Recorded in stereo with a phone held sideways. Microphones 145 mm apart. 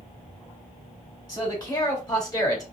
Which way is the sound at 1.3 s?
30° left (ahead or behind).